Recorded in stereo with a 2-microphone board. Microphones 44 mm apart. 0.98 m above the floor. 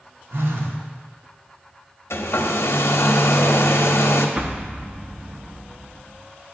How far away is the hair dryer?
About 0.6 m.